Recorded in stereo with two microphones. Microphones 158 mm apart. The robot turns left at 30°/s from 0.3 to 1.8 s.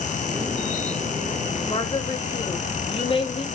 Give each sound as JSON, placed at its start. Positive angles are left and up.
{"t": 1.7, "sound": "a woman speaking", "side_deg": 40, "distance_m": 1.3}